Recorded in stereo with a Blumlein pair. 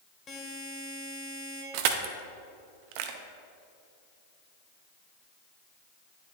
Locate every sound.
0.3 s a buzzer: 20° left, 1.9 m
1.7 s crushing: 45° right, 0.7 m